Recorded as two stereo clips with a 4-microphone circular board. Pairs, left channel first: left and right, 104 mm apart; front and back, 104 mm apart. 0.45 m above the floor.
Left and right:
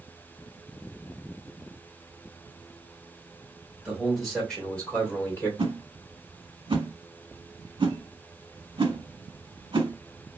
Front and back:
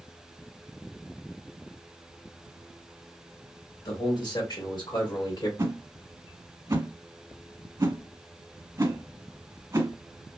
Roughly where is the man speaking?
Ahead.